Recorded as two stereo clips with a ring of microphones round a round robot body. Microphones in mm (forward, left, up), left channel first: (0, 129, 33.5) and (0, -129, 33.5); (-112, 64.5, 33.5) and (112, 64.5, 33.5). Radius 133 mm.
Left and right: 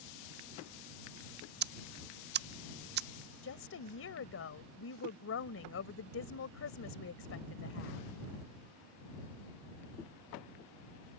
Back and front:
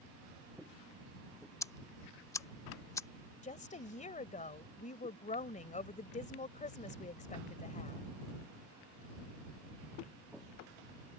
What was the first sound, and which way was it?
Ticking, 110° right.